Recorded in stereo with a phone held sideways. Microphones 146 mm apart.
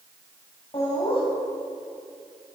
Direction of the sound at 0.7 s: 40° left (ahead or behind).